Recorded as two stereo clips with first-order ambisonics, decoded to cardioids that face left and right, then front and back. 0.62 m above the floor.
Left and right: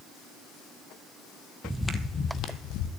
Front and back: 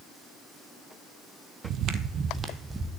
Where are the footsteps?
170° right, 0.8 m; by 2.9 s 100° left, 1.1 m.